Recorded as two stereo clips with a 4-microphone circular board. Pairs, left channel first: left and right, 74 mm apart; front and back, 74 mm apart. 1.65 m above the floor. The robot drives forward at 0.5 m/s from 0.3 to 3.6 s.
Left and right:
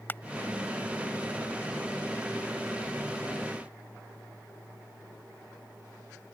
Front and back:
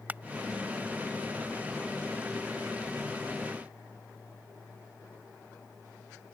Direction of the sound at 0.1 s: 130° left.